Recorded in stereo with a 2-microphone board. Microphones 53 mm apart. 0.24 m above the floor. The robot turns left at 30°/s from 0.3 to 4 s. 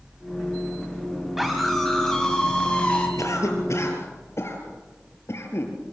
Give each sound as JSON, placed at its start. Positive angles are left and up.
{"t": 1.4, "sound": "a scream", "azimuth_deg": -175, "distance_m": 1.9}
{"t": 3.2, "sound": "a cough", "side_deg": 75, "distance_m": 4.0}